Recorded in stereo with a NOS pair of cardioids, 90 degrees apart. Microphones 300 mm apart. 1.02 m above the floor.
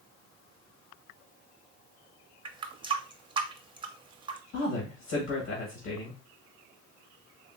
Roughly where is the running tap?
Ahead.